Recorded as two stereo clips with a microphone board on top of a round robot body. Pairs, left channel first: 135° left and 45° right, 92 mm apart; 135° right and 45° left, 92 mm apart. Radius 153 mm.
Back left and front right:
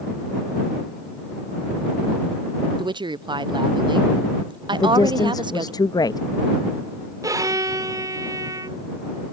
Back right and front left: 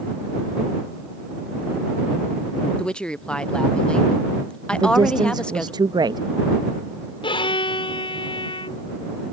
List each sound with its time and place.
2.8 s a woman speaking: 55° right
4.7 s a woman speaking: 90° left
7.2 s a violin: 100° right